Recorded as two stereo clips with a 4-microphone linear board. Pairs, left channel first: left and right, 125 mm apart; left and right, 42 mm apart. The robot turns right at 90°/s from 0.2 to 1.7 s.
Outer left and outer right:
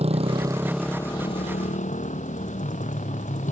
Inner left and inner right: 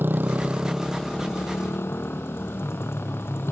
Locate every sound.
0.0 s a motorcycle: 55° right; by 3.5 s 80° left